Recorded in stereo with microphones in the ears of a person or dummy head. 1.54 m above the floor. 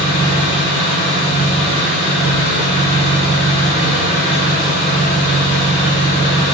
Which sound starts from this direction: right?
An engine running, at 0.0 s.